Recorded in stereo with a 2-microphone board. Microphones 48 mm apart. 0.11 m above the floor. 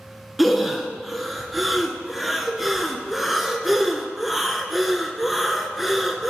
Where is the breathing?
Centre (ahead or behind), 0.8 m.